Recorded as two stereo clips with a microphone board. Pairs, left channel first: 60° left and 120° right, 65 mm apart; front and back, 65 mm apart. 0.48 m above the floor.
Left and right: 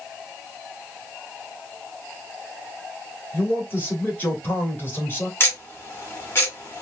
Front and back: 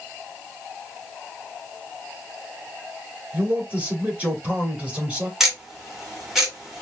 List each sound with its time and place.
3.3 s a man speaking: 115° left, 2.0 m
5.4 s ticking: 100° left, 1.6 m